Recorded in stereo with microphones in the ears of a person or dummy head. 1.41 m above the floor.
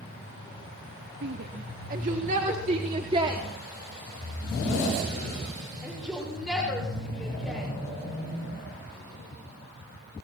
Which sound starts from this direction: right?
A shout, at 1.2 s.